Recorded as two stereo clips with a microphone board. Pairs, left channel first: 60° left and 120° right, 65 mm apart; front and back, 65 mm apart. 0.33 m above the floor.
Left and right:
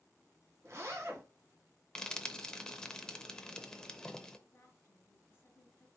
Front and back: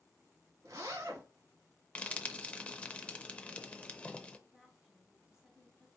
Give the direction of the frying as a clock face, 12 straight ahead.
12 o'clock.